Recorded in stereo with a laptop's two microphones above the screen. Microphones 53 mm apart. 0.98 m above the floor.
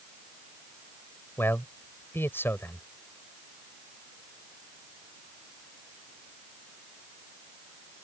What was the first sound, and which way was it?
A man speaking, 50° left (ahead or behind).